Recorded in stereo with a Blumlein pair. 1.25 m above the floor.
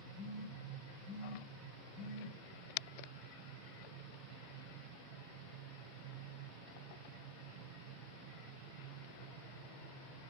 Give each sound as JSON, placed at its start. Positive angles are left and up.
{"t": 0.1, "sound": "a phone buzzing", "azimuth_deg": -10, "distance_m": 1.2}